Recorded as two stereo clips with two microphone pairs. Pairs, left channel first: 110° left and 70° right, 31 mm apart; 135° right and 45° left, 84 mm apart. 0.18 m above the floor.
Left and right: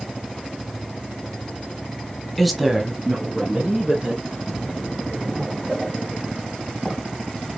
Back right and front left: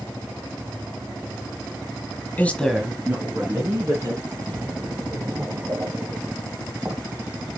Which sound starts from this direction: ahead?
A splash, at 4.3 s.